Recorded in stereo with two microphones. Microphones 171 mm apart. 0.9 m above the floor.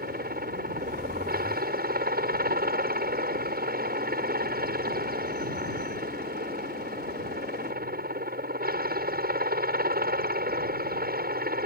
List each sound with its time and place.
0.0 s a helicopter: 65° right (ahead or behind)